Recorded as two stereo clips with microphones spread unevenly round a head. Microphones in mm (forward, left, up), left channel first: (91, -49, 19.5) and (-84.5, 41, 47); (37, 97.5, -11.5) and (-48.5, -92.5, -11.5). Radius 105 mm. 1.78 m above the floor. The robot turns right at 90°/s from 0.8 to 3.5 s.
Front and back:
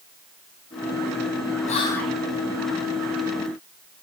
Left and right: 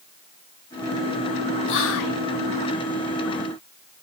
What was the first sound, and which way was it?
Whispering, 30° left.